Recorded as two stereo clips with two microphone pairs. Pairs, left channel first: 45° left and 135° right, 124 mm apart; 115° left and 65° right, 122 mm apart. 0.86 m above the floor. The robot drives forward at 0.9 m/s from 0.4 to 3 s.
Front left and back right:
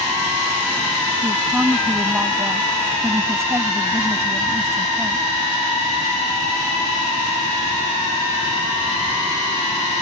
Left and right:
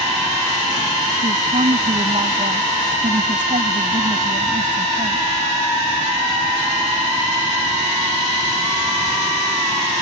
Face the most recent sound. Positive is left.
turn(degrees=-65)